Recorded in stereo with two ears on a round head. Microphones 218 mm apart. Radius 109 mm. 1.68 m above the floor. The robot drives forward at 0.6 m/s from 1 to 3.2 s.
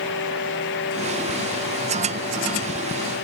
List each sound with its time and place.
Only background noise.